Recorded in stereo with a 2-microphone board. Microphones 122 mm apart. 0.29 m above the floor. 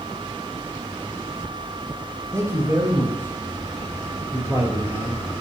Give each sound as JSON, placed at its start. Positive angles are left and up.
{"t": 2.3, "sound": "a man speaking", "side_deg": -25, "distance_m": 6.5}